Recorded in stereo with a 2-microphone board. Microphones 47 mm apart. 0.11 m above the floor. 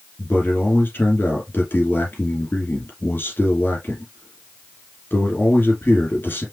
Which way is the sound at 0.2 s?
50° left (ahead or behind).